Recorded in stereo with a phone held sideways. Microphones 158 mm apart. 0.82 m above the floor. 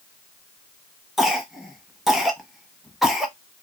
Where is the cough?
Centre (ahead or behind), 1.0 m.